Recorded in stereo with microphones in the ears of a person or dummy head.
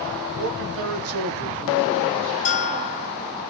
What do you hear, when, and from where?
0.4 s a man speaking: 55° right (ahead or behind), 1.2 m; by 2.4 s centre (ahead or behind), 1.1 m
2.5 s a bell: 35° left (ahead or behind), 0.7 m